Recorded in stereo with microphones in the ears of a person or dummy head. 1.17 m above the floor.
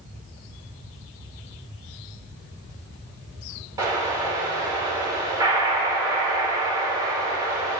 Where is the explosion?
20° right (ahead or behind), 4 m.